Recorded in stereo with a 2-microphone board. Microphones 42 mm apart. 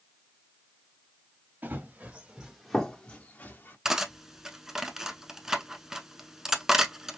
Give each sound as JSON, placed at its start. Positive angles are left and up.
{"t": 1.6, "sound": "running footsteps", "side_deg": -45, "distance_m": 1.8}
{"t": 3.9, "sound": "cutlery clinking", "side_deg": -10, "distance_m": 0.7}